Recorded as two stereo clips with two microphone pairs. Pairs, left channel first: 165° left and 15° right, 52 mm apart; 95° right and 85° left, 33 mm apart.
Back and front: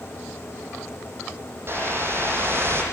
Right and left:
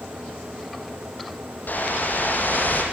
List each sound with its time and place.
1.7 s a whoosh: 60° right, 6.5 m